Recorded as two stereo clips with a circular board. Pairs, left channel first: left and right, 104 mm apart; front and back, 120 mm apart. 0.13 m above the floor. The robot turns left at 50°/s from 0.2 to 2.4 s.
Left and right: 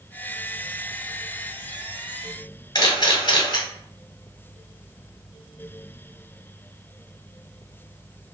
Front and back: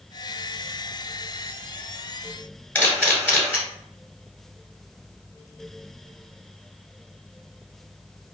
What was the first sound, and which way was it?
A camera shutter, 70° left.